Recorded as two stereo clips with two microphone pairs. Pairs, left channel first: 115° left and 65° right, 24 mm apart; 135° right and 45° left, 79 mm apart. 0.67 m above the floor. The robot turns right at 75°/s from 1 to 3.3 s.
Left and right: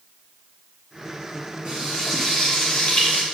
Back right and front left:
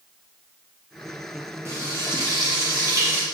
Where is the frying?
10° right, 1.3 m; by 3.2 s 110° left, 1.3 m.